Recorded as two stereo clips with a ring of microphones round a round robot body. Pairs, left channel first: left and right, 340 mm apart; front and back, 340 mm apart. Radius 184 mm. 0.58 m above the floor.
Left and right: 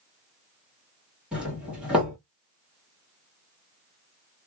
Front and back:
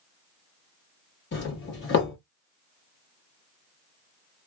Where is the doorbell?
5° right, 1.3 m.